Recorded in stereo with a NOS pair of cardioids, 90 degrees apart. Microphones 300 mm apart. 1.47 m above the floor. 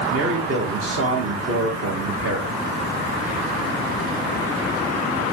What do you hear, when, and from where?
0.1 s a man speaking: 45° right, 1.9 m